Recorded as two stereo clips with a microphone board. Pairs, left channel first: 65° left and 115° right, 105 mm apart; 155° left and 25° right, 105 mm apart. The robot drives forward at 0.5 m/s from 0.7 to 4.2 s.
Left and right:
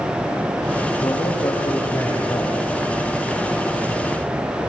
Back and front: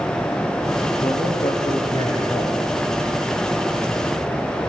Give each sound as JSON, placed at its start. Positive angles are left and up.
{"t": 1.0, "sound": "a man speaking", "azimuth_deg": 115, "distance_m": 8.5}